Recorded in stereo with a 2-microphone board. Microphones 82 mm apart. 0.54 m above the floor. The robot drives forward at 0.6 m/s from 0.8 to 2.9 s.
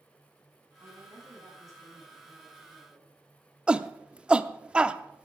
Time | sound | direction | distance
0.8 | a woman speaking | 40° right (ahead or behind) | 6 m
3.7 | a shout | 15° right (ahead or behind) | 0.6 m